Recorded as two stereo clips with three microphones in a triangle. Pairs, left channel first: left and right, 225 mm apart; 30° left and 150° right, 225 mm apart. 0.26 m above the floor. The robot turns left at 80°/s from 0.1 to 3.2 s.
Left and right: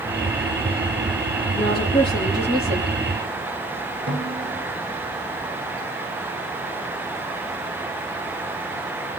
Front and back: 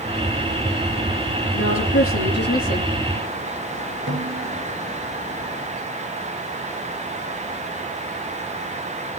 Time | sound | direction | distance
1.6 | a woman speaking | 60° left | 6.5 m
4.1 | a snare drum | 125° right | 5 m